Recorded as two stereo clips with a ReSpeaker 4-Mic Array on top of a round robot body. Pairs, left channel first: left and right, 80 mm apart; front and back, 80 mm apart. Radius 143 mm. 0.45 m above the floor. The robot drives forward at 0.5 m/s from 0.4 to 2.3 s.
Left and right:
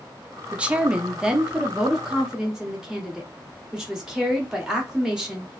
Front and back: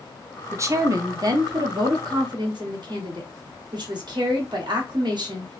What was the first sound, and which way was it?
A woman speaking, 155° right.